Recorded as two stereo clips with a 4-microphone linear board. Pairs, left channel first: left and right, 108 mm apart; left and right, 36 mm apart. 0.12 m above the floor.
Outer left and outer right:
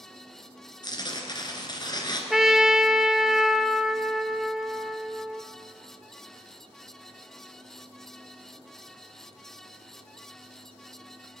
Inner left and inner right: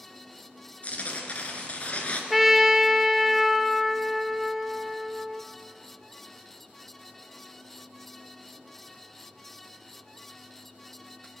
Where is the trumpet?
5° right (ahead or behind), 0.6 m.